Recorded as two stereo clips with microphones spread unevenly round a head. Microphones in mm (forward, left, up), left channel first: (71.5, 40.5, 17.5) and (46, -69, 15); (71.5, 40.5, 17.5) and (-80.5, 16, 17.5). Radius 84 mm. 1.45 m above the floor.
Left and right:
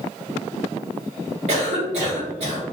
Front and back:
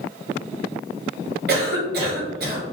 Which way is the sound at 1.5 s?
145° right.